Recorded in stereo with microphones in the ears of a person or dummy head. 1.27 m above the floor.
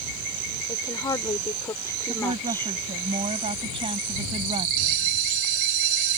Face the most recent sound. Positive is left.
turn(degrees=-75)  # may be behind; listen again after turning